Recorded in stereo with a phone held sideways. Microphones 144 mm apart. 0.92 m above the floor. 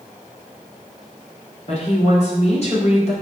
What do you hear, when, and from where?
1.7 s a woman speaking: 50° left (ahead or behind), 2.5 m